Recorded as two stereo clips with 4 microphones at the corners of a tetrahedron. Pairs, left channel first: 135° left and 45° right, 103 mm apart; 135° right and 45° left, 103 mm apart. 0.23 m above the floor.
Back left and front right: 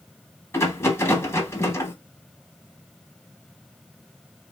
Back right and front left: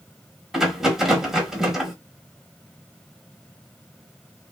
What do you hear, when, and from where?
0.5 s a rattle: 125° left, 0.8 m